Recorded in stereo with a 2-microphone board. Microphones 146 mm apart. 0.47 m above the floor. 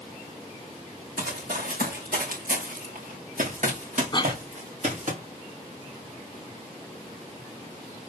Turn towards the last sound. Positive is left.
turn(degrees=30)  # may be behind; listen again after turning